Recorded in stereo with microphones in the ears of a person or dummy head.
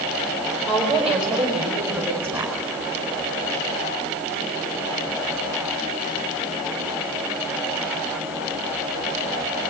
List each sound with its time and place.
0.7 s a woman speaking: centre (ahead or behind), 5 m; by 2.5 s 15° right (ahead or behind), 5 m